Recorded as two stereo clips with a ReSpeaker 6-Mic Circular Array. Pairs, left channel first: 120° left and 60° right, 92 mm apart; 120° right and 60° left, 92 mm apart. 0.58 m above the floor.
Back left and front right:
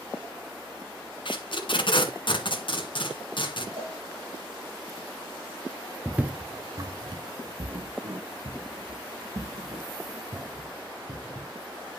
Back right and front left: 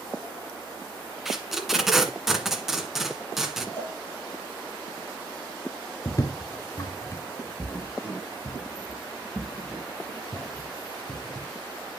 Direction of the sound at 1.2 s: 145° left.